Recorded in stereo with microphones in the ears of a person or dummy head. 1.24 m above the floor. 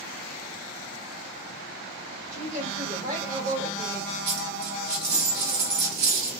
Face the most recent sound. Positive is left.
turn(degrees=-55)  # may be behind; listen again after turning